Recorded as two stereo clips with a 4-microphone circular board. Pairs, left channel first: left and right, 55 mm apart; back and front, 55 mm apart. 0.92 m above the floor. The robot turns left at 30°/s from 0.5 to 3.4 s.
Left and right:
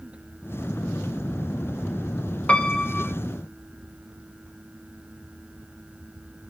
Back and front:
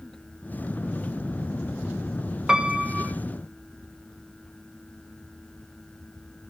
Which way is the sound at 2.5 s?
55° left.